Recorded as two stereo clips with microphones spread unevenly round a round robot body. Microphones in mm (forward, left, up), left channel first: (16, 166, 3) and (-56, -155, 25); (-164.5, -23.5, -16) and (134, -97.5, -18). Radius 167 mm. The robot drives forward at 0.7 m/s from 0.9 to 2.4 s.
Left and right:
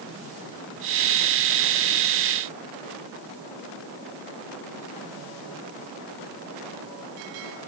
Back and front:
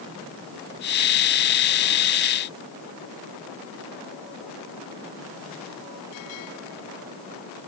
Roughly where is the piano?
No piano in this recording.